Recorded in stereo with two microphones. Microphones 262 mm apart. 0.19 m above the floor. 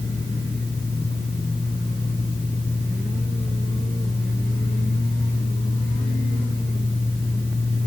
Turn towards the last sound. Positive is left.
No sound to turn to.